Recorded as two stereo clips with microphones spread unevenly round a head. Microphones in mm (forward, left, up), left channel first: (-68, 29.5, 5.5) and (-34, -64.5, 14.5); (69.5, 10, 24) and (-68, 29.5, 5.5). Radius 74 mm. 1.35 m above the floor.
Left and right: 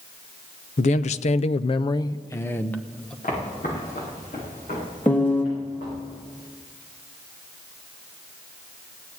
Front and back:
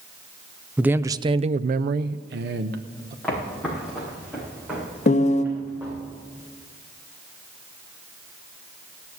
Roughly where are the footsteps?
Left.